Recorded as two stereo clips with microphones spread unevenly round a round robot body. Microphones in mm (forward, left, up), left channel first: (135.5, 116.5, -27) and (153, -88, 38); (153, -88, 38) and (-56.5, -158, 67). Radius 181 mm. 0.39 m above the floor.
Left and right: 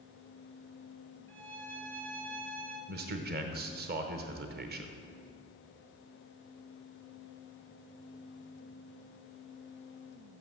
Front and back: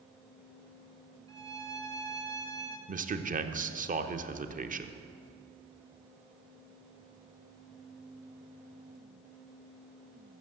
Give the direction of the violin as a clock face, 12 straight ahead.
2 o'clock.